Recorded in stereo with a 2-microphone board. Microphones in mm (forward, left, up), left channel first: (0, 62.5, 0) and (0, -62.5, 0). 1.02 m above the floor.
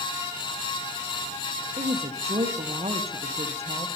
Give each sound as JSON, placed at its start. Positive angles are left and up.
{"t": 1.8, "sound": "a woman speaking", "side_deg": -55, "distance_m": 0.7}